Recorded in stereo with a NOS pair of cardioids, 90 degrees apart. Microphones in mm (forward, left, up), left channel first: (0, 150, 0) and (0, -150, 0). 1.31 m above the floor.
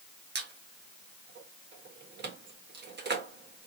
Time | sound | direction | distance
0.3 | a squeak | 40° right | 1.5 m